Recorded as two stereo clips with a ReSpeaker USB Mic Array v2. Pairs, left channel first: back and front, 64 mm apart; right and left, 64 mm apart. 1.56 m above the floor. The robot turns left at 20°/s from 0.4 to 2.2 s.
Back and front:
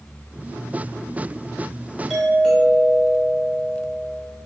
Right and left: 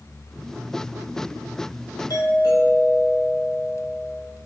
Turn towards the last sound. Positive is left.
turn(degrees=-85)